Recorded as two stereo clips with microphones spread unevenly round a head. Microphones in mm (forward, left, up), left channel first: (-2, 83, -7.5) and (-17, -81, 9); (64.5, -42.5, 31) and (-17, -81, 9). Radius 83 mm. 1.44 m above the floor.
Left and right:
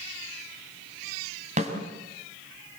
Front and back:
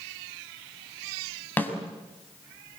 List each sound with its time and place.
1.6 s a snare drum: 45° right, 6 m